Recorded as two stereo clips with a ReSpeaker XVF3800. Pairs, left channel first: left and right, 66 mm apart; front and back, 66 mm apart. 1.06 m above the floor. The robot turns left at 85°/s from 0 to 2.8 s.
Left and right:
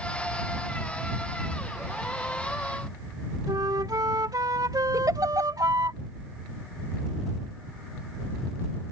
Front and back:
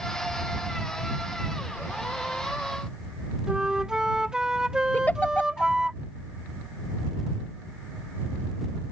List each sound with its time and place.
3.5 s a flute: 100° right
4.9 s a giggle: 65° right